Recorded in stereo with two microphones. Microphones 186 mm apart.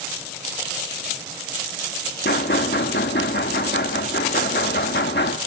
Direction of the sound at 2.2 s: 65° left (ahead or behind).